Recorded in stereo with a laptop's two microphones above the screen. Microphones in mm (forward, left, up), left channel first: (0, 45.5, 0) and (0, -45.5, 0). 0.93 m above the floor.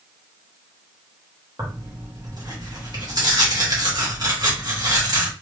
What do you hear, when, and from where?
1.6 s tearing paper: 45° right (ahead or behind), 1.2 m